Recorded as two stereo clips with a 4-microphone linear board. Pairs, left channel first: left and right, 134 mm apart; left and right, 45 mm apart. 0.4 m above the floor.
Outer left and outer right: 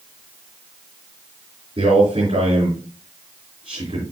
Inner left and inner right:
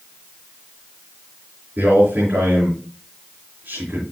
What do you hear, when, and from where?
1.8 s a man speaking: 50° right (ahead or behind), 5 m